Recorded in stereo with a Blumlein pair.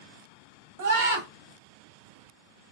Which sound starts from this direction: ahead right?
A scream, at 0.8 s.